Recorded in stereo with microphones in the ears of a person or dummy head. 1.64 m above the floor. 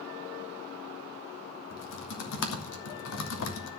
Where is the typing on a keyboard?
75° left (ahead or behind), 2.5 m.